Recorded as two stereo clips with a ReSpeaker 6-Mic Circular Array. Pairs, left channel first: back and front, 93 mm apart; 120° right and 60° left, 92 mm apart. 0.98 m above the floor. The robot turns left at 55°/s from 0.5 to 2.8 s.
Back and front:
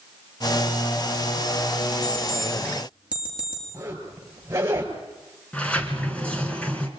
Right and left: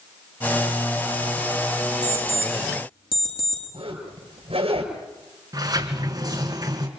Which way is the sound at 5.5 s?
105° left.